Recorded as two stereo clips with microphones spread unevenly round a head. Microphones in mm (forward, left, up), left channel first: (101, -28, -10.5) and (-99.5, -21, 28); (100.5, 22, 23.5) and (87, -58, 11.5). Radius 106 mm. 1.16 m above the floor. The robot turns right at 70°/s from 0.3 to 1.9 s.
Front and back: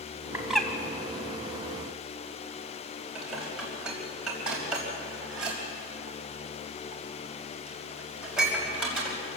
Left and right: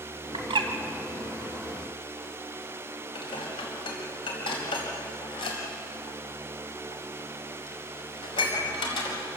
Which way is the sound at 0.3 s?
110° right.